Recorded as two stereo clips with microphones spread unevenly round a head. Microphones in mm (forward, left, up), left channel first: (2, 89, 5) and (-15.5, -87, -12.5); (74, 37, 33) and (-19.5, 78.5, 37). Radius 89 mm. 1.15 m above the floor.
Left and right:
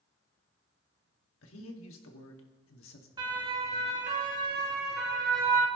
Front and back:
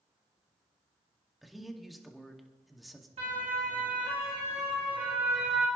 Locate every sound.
1.4 s a man speaking: 65° left, 2 m
3.2 s a siren: 160° right, 2 m; by 5.7 s 115° right, 2 m